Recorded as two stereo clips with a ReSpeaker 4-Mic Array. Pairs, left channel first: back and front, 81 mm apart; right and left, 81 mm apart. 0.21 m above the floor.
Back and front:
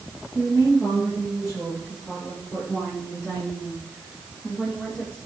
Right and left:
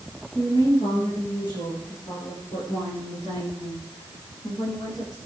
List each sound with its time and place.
0.3 s a woman speaking: 75° right, 8.5 m; by 5.2 s 100° right, 12 m